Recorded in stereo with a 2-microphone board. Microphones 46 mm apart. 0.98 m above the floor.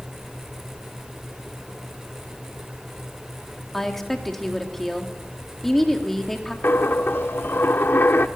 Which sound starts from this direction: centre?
A woman speaking, at 3.7 s.